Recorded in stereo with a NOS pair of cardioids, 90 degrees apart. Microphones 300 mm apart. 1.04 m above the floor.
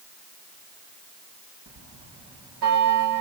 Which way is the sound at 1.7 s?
60° right.